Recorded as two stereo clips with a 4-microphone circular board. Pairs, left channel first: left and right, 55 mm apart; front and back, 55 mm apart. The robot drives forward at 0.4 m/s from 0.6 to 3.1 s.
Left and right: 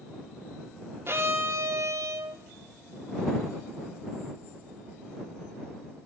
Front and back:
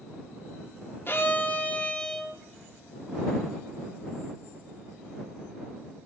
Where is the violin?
45° right, 0.8 m; by 2.4 s 90° right, 0.5 m.